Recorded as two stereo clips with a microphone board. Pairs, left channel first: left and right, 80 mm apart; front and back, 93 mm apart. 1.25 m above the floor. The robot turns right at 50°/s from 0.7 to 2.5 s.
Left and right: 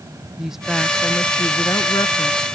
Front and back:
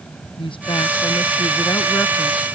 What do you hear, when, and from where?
0.4 s a woman speaking: 5° right; by 2.5 s 85° left